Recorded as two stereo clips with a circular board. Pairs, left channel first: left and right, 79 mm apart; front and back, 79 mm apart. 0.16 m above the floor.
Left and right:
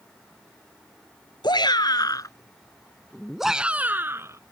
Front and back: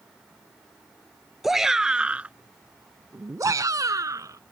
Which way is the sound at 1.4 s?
95° left.